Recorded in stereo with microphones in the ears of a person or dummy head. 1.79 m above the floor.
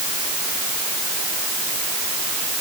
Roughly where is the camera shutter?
No camera shutter in this recording.